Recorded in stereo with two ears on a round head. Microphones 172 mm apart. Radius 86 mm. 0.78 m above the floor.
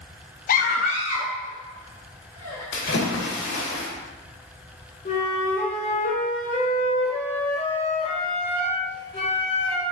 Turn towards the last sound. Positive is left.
turn(degrees=35)  # may be behind; listen again after turning